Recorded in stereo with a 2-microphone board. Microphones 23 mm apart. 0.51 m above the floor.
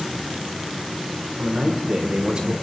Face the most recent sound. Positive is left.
turn(degrees=-40)  # may be behind; listen again after turning